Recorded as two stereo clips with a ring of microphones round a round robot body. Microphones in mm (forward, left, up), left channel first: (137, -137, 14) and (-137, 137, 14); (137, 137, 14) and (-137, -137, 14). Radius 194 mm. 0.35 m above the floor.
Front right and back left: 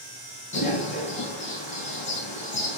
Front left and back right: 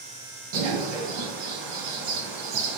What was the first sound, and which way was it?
A bird, 115° right.